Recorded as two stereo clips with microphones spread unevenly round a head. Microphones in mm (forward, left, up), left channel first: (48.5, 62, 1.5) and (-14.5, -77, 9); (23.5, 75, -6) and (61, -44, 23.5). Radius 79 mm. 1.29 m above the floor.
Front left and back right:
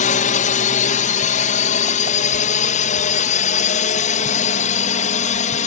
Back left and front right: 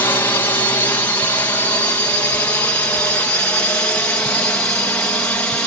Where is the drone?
45° left; by 5.7 s 35° left.